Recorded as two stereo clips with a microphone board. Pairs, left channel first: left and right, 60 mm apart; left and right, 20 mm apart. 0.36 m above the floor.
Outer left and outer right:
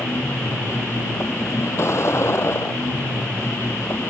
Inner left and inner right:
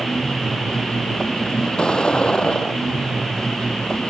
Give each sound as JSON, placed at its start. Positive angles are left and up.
{"t": 0.0, "sound": "a vehicle", "side_deg": 50}